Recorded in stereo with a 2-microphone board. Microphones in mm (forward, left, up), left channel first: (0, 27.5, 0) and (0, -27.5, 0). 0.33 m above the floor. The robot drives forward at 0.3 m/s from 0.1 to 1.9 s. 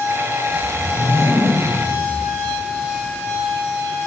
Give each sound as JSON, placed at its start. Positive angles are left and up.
{"t": 0.5, "sound": "a whoosh", "side_deg": 40, "distance_m": 8.5}